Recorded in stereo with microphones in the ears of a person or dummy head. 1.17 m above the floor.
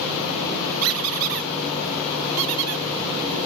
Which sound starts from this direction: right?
A squeak, at 0.8 s.